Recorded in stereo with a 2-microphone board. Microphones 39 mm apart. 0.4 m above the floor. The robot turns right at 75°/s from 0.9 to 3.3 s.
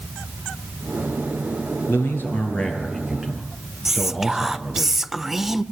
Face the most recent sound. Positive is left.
turn(degrees=-10)  # may be behind; listen again after turning